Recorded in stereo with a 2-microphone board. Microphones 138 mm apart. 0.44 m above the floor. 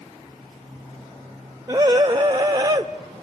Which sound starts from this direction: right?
A scream, at 1.7 s.